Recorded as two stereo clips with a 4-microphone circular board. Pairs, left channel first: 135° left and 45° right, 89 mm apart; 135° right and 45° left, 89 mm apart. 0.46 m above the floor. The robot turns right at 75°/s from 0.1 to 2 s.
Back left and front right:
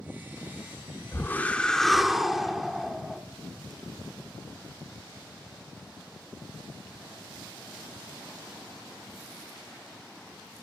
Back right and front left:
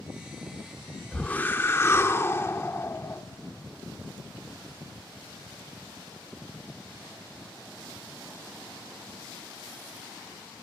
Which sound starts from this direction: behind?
A whoosh, at 1.1 s.